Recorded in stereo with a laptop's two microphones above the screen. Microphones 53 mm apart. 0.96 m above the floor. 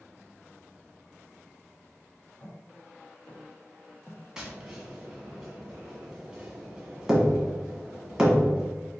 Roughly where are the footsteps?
Left.